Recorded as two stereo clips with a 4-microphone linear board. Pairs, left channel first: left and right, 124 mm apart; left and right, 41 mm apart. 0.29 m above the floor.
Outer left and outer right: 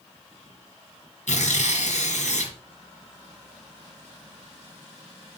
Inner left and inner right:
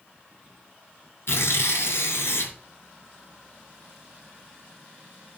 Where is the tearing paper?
75° left (ahead or behind), 2.5 m.